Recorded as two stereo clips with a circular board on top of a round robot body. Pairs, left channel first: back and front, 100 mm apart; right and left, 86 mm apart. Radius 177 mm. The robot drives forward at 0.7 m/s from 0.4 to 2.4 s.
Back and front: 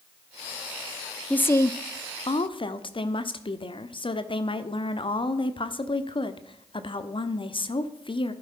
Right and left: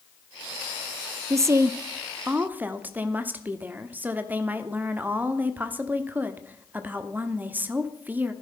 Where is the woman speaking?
110° left, 0.8 m; by 8.3 s 155° left, 1.2 m.